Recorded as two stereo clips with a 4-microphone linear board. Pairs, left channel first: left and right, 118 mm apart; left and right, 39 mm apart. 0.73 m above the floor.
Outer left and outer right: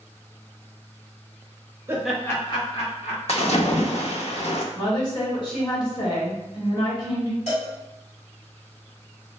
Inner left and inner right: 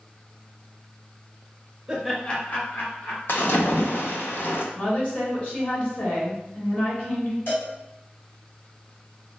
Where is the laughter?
25° right (ahead or behind), 0.8 m; by 3.2 s 65° left (ahead or behind), 1.8 m.